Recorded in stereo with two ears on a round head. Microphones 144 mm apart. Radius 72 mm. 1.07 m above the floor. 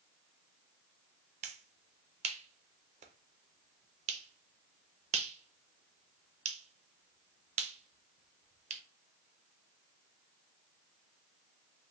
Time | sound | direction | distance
1.4 | a finger snap | 40° right (ahead or behind) | 0.6 m